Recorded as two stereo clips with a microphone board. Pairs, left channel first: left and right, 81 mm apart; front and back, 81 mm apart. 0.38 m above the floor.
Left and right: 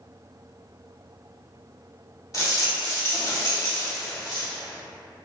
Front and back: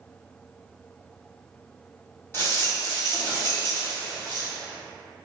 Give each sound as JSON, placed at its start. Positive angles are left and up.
{"t": 2.3, "sound": "a rattle", "azimuth_deg": 55, "distance_m": 2.0}